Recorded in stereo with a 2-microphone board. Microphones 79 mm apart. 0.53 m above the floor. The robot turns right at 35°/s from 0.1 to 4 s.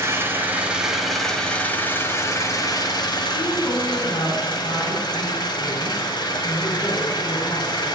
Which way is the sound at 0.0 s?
35° right.